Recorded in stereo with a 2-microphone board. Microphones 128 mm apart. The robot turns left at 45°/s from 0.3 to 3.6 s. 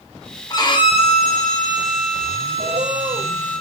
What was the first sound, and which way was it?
A violin, 150° left.